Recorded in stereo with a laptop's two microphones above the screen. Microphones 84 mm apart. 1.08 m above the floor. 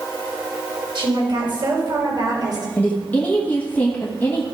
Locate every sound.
0.9 s a woman speaking: 65° right (ahead or behind), 4.5 m; by 2.7 s 45° right (ahead or behind), 4 m
2.8 s a woman speaking: 20° left (ahead or behind), 1.4 m